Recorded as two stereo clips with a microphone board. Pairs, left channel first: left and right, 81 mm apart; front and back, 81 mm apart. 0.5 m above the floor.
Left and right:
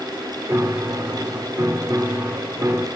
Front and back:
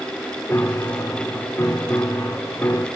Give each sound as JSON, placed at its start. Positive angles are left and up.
{"t": 0.5, "sound": "a piano", "azimuth_deg": -50, "distance_m": 1.1}